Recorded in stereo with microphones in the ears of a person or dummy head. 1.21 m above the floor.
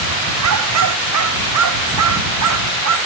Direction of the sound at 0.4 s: 85° right.